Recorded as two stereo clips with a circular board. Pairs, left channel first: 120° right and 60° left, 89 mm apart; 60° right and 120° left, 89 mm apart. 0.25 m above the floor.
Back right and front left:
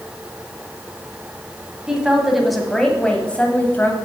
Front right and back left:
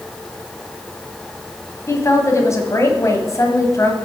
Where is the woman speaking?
20° right, 1.8 m; by 4.0 s 75° right, 1.5 m.